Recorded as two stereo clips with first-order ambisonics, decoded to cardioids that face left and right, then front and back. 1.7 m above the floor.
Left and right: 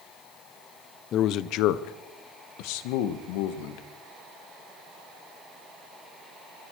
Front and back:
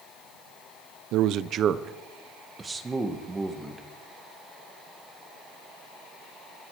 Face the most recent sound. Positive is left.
turn(degrees=100)